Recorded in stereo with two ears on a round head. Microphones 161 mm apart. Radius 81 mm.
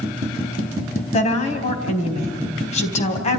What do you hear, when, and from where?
1.1 s a woman speaking: 40° left (ahead or behind), 4 m